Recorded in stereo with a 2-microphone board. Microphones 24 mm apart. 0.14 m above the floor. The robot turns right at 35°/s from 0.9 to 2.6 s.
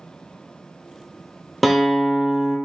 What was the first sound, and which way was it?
A guitar, 175° left.